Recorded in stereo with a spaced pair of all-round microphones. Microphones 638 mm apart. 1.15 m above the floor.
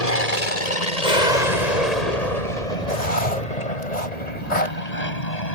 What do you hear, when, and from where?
0.0 s an aircraft: 70° left (ahead or behind); by 5.5 s 75° left (ahead or behind)
2.9 s writing: 85° left